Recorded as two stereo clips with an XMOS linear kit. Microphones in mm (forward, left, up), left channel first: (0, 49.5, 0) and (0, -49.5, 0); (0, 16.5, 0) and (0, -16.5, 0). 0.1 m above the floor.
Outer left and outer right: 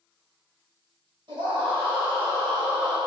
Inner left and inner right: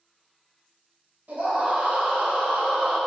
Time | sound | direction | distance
1.3 | a scream | 55° right (ahead or behind) | 1.8 m